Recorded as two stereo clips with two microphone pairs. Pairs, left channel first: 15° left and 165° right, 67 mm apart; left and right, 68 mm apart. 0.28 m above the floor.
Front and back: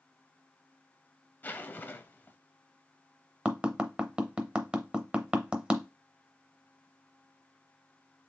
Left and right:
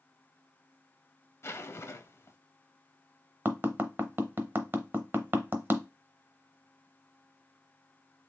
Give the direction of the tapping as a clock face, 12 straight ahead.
4 o'clock.